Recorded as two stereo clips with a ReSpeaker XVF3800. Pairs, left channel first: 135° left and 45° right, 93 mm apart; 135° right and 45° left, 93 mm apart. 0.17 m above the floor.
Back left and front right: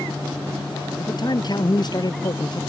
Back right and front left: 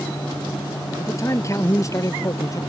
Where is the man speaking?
170° left; by 2.6 s 175° left.